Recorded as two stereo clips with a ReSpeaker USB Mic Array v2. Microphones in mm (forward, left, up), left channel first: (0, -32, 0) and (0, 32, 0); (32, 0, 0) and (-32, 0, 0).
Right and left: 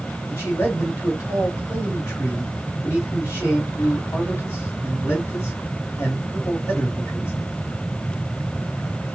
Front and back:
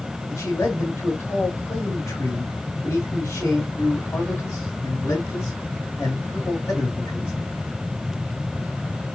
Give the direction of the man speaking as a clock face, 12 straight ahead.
2 o'clock.